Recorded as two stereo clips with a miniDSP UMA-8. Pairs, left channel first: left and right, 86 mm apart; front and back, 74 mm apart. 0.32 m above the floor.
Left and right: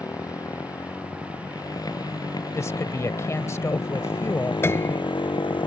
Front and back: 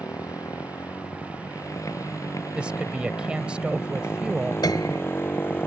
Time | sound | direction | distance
0.0 | a motorcycle | 40° left | ?
2.5 | a woman speaking | 115° left | ?
4.6 | a piano | 25° left | ?